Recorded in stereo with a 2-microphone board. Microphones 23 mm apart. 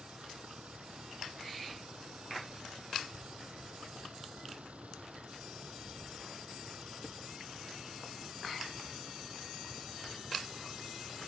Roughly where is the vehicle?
Right.